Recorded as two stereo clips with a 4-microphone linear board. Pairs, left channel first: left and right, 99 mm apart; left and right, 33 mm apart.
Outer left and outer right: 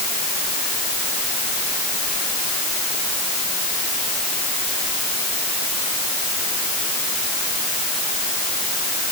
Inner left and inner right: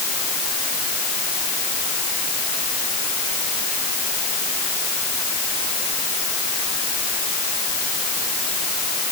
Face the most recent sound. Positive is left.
No sound to turn to.